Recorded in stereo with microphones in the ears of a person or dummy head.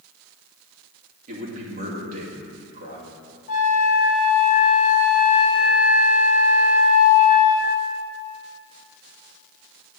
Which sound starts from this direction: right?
A man speaking, at 1.3 s.